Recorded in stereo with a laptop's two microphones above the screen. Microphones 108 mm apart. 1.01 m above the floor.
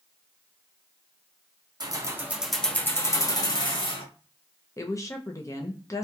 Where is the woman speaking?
30° left (ahead or behind), 0.6 m.